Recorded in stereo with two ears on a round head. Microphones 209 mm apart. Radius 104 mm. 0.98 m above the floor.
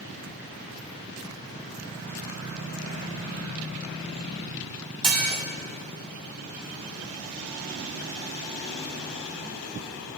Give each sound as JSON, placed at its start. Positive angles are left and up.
{"t": 5.0, "sound": "dishes clattering", "side_deg": -20, "distance_m": 1.7}